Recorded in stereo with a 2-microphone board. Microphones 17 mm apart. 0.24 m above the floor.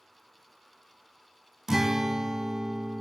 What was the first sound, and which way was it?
A guitar, 30° right (ahead or behind).